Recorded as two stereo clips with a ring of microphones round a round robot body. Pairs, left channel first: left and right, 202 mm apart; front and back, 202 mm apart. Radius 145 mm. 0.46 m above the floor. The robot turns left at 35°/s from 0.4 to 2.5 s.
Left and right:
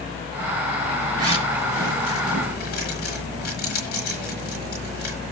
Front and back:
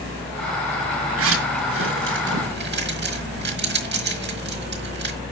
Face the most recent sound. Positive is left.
turn(degrees=150)